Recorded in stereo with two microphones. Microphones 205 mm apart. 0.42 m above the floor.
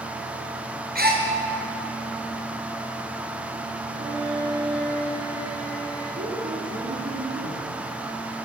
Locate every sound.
0.9 s a gasp: 50° right (ahead or behind), 4 m
3.9 s a violin: 50° left (ahead or behind), 8.5 m
6.2 s a woman speaking: 75° right (ahead or behind), 4.5 m